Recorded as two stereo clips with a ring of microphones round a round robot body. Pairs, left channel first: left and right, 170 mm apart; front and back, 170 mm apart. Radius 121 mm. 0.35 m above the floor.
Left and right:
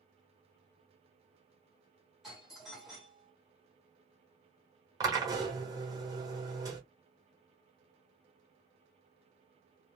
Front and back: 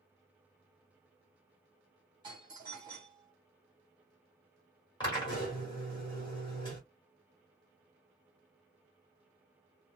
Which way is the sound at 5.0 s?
40° right.